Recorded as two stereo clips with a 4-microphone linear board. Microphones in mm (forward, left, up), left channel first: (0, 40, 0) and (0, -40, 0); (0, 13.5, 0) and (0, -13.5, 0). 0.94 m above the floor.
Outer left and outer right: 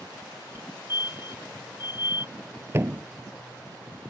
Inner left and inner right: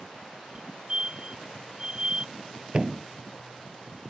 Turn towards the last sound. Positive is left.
turn(degrees=-30)  # may be behind; listen again after turning